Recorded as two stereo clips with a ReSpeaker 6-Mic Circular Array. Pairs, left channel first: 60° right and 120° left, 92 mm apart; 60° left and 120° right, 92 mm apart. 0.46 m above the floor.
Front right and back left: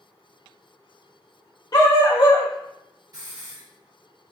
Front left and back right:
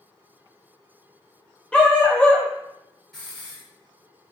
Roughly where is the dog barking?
Ahead.